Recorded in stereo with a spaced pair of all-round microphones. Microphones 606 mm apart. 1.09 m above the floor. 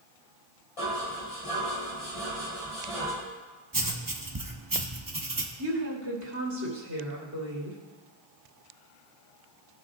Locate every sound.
0.8 s dishes clattering: 60° left (ahead or behind), 4 m
3.7 s writing: 35° right (ahead or behind), 1.0 m
5.6 s a woman speaking: 30° right (ahead or behind), 3 m